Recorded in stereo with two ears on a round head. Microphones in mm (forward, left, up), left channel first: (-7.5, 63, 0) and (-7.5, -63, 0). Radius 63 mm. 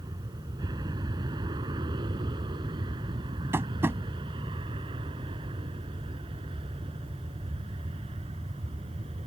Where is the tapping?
15° right (ahead or behind).